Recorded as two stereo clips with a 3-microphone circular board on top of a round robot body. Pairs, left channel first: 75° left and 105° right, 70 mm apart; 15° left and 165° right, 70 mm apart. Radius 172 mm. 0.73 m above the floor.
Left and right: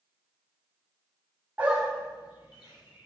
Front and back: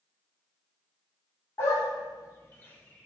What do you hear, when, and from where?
1.6 s a dog barking: 35° right, 0.7 m; by 3.1 s 90° left, 1.3 m